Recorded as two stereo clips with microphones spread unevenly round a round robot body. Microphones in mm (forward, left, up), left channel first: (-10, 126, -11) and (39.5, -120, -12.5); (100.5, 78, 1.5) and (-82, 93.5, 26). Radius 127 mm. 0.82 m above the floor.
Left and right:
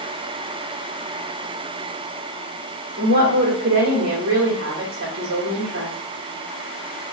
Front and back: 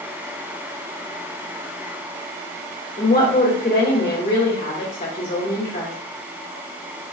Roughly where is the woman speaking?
Ahead right.